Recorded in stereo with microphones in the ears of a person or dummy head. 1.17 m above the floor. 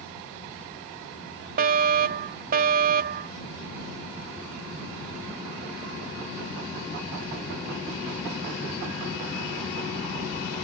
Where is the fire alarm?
45° right (ahead or behind).